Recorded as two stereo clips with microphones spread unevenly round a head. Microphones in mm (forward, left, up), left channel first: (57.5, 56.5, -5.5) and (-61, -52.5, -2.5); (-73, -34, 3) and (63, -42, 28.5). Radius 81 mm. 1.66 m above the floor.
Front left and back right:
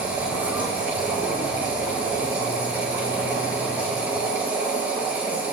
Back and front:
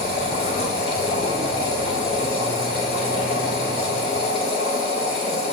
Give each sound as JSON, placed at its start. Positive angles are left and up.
{"t": 0.0, "sound": "a machine running", "azimuth_deg": 145, "distance_m": 5.0}